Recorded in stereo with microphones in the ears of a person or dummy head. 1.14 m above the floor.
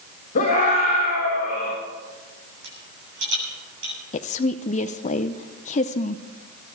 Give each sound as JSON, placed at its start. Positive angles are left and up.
{"t": 0.3, "sound": "a scream", "side_deg": 45, "distance_m": 4.0}
{"t": 2.6, "sound": "a rattle", "side_deg": -70, "distance_m": 7.5}
{"t": 4.1, "sound": "a woman speaking", "side_deg": 35, "distance_m": 0.6}